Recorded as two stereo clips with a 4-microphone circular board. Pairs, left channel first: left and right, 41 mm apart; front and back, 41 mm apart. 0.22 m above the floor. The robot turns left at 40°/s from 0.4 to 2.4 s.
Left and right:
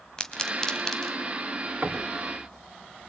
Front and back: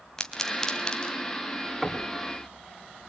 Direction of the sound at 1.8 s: 100° right.